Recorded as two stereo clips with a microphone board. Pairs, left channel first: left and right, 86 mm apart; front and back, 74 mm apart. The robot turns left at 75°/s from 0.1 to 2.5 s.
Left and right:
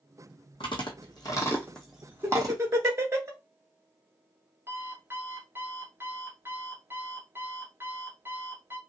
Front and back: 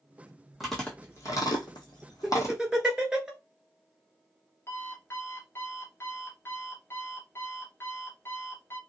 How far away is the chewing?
About 1.3 m.